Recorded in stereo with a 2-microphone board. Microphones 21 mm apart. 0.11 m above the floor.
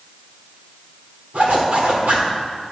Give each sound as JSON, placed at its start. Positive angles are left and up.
{"t": 1.3, "sound": "a zipper", "side_deg": -85, "distance_m": 3.0}